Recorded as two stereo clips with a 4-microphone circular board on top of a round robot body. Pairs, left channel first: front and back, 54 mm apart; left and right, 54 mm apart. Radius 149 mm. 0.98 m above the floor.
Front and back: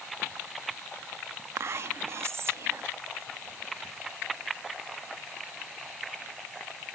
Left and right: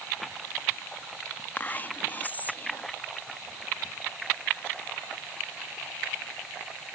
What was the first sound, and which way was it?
Whispering, 145° left.